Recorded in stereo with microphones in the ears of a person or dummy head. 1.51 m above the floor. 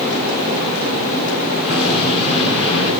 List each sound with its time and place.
1.6 s an explosion: 35° right (ahead or behind), 10 m